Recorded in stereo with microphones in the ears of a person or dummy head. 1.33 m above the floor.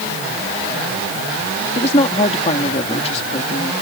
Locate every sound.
1.8 s a woman speaking: 35° left (ahead or behind)